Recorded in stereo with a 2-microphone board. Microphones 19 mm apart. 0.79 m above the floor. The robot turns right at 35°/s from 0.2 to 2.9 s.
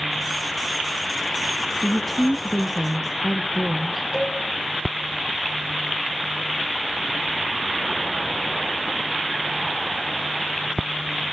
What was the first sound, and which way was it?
A woman speaking, 135° left.